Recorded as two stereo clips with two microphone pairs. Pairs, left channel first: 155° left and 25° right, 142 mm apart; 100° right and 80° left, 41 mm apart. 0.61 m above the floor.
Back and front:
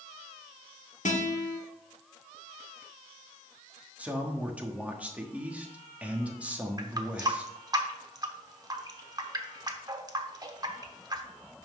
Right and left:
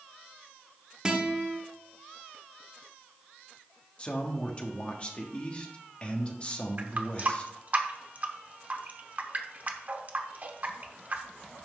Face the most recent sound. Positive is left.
turn(degrees=40)